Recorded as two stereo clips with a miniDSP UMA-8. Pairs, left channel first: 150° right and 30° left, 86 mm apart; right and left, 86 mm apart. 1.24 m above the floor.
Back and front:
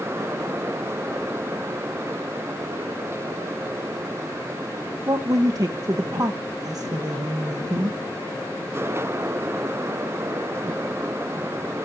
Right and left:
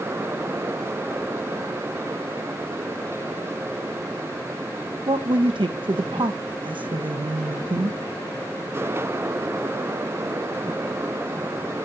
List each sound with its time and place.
5.1 s a woman speaking: 75° left, 0.8 m